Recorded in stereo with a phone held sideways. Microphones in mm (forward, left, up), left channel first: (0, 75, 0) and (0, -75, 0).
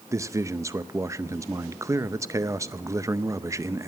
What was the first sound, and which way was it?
A man speaking, 20° right (ahead or behind).